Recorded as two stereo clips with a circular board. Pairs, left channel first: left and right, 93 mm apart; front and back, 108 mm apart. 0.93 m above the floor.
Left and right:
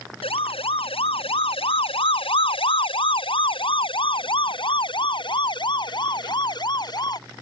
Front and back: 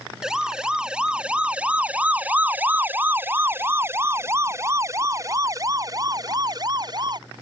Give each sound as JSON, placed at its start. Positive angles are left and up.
{"t": 0.2, "sound": "a siren", "azimuth_deg": 95}